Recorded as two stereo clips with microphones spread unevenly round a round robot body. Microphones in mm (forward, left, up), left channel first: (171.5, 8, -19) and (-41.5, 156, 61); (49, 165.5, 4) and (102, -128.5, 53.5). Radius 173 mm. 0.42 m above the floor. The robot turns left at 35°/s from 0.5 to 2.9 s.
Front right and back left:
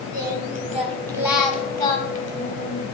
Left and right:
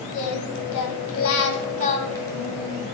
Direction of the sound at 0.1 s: 80° left.